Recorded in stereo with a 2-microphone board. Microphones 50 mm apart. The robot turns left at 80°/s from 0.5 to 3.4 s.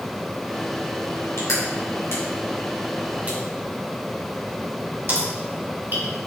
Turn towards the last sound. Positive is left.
turn(degrees=-40)  # may be behind; listen again after turning